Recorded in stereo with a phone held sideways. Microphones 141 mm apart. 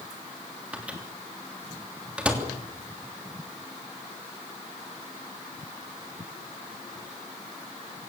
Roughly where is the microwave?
Centre.